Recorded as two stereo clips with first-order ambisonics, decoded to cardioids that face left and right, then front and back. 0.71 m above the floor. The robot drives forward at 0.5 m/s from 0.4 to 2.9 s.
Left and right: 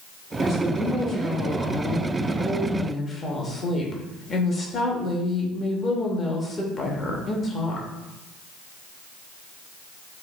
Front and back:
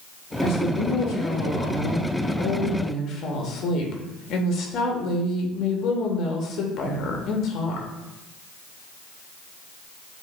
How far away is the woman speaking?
About 1.8 m.